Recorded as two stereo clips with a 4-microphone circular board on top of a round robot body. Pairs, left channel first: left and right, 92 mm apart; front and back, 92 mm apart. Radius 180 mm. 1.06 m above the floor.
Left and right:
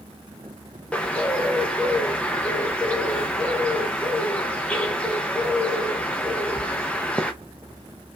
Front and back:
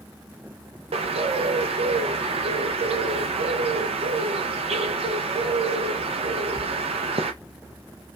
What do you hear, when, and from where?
0.9 s a bird: 165° left, 0.5 m